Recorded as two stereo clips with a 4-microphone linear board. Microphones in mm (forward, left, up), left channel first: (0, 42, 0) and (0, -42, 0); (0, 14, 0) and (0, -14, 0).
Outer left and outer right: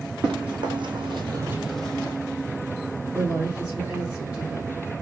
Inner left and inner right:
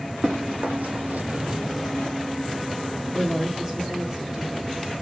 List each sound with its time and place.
0.2 s running footsteps: 60° right (ahead or behind), 1.8 m; by 2.1 s 20° left (ahead or behind), 1.2 m
3.1 s a woman speaking: 15° right (ahead or behind), 1.2 m